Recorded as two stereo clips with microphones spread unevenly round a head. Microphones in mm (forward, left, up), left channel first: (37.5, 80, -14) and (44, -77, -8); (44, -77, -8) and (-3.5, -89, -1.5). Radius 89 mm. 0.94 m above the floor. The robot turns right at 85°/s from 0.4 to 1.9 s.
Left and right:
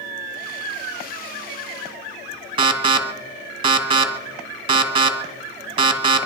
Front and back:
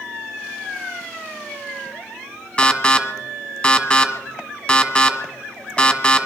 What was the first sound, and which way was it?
An alarm, 35° right.